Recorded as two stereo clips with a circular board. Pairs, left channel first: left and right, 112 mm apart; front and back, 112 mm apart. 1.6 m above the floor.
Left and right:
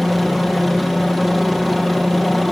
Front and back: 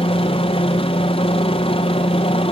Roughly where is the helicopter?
Ahead.